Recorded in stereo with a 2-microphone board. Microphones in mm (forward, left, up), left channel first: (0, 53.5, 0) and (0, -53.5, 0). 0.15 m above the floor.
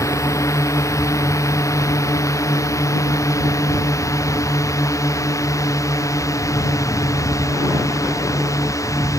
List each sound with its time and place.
0.0 s a drone: 30° left (ahead or behind)